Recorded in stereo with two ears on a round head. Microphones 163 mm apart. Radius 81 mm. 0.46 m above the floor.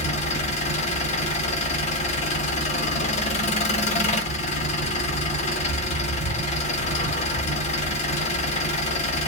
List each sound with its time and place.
0.0 s an engine running: 40° left (ahead or behind), 1.0 m